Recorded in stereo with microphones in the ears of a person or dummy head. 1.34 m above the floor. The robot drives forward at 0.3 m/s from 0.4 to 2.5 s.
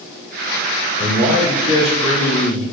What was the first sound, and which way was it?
A man speaking, 70° left (ahead or behind).